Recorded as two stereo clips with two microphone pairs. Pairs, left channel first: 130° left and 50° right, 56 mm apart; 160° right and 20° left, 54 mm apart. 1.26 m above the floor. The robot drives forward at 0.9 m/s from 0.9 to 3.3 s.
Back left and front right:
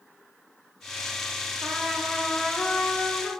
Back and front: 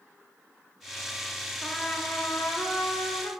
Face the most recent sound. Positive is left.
turn(degrees=-165)